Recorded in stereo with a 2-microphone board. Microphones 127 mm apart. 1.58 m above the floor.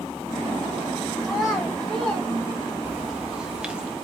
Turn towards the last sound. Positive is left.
turn(degrees=-10)  # may be behind; listen again after turning